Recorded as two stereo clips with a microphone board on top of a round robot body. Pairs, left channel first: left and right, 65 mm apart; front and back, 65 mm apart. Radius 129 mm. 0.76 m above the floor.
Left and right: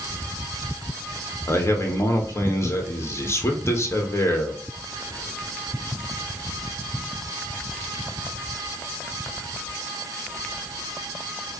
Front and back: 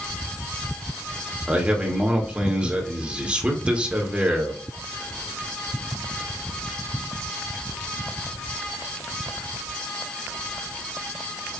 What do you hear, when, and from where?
1.5 s a man speaking: 115° left, 1.2 m